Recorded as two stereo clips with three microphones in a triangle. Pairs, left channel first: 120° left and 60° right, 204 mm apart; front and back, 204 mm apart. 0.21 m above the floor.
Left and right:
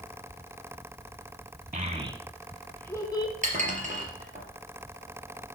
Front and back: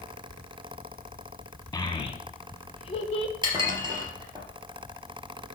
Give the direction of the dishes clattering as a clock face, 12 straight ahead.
4 o'clock.